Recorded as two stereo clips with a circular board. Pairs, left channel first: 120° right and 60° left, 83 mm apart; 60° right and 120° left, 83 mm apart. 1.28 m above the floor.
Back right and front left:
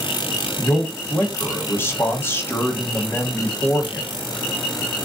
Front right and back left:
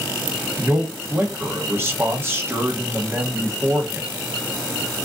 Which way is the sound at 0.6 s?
Straight behind.